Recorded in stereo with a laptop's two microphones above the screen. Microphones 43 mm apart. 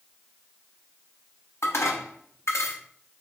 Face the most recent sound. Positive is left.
turn(degrees=80)